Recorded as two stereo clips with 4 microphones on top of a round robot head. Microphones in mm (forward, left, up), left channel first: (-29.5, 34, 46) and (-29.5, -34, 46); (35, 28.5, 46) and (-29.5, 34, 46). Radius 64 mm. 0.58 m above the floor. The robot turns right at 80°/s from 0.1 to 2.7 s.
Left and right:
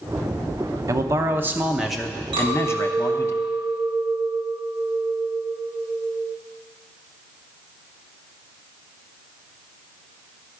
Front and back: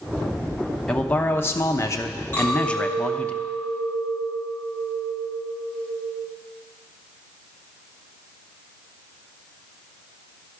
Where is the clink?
70° right, 4 m; by 6.3 s 40° right, 4 m.